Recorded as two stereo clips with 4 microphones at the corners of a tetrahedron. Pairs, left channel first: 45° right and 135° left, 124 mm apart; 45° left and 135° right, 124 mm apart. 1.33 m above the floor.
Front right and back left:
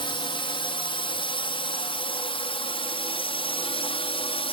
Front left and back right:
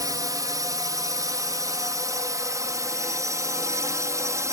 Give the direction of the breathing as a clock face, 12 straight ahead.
No breathing in this recording.